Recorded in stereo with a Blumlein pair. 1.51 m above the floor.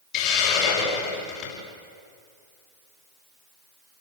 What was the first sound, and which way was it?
A hiss, 40° left.